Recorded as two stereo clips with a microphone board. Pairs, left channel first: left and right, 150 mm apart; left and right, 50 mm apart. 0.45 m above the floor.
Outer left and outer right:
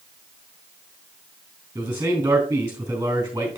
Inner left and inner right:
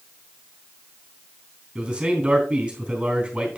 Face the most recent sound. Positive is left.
turn(degrees=-20)  # may be behind; listen again after turning